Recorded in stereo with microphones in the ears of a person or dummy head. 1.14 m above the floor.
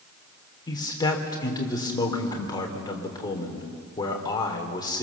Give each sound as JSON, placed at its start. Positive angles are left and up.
{"t": 0.7, "sound": "a man speaking", "side_deg": 20, "distance_m": 3.0}